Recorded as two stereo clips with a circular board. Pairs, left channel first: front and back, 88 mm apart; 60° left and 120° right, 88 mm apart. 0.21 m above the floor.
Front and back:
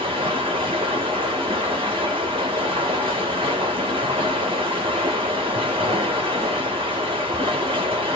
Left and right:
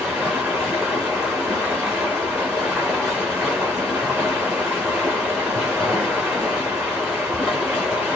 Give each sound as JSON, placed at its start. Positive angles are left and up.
{"t": 0.0, "sound": "running water", "azimuth_deg": 160, "distance_m": 2.0}